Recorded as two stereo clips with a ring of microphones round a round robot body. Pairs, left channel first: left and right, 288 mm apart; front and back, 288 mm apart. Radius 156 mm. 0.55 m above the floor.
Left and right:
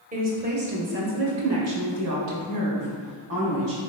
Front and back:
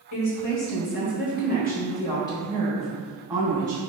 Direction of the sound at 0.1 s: 30° right.